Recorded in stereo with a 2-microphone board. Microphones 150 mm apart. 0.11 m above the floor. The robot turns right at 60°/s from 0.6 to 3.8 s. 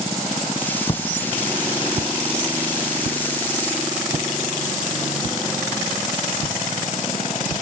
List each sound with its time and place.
0.9 s footsteps: 35° left (ahead or behind), 0.7 m; by 7.6 s 20° right (ahead or behind), 4 m